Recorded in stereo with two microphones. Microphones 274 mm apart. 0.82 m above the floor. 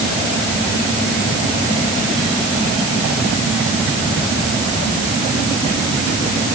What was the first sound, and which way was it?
Only background noise.